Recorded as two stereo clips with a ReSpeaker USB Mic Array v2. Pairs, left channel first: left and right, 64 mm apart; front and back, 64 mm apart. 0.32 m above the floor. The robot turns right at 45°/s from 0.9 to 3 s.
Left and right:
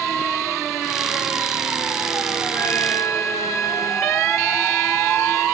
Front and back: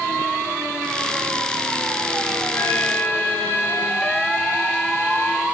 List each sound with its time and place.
2.5 s a trumpet: 45° left, 4 m; by 5.5 s 65° left, 4 m